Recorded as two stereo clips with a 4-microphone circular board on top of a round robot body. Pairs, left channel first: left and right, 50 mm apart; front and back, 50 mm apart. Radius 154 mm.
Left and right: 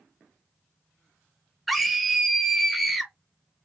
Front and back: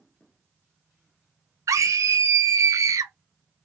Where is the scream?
Straight behind, 0.8 m.